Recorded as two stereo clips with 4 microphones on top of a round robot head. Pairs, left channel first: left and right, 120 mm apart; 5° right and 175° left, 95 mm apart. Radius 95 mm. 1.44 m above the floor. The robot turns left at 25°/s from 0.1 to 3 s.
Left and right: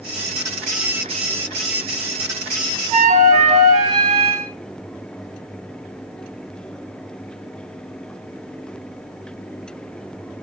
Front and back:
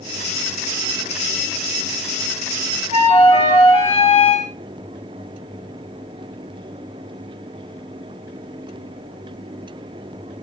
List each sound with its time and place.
2.9 s a flute: 45° right, 2 m; by 4.5 s 50° right, 2 m